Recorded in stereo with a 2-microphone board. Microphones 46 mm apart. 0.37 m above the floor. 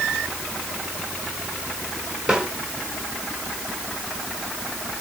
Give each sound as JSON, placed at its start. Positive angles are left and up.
{"t": 2.3, "sound": "a snare drum", "side_deg": -15, "distance_m": 4.0}